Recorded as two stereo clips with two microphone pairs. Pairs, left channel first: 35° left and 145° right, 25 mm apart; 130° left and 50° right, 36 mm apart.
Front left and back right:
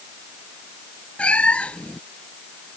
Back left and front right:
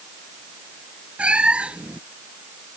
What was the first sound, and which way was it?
A cat meowing, 5° left.